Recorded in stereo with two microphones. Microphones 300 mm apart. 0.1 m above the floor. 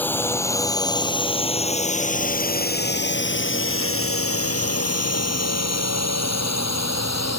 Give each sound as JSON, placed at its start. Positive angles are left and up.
{"t": 0.0, "sound": "a drone", "side_deg": 5}